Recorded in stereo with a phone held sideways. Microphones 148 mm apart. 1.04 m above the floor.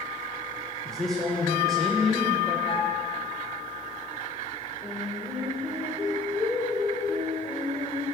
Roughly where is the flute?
Left.